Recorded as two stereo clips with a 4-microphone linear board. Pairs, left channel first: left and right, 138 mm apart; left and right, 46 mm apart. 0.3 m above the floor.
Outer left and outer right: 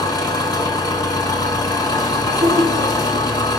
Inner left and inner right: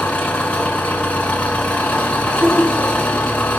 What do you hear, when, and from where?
0.0 s an engine running: 30° left (ahead or behind), 1.2 m
2.3 s laughter: 50° right (ahead or behind), 2.5 m